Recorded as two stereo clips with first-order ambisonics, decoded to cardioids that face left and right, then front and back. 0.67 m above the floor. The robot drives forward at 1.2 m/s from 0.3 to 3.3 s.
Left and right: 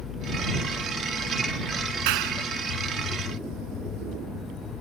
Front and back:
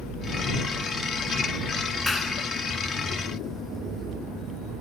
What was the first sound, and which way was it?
A clap, 85° right.